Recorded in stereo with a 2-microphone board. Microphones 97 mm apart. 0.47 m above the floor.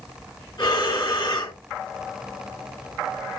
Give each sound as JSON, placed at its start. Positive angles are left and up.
{"t": 0.6, "sound": "breathing", "side_deg": 50, "distance_m": 1.6}